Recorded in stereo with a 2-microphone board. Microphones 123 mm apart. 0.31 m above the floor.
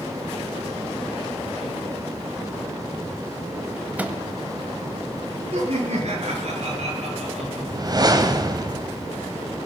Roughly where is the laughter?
Right.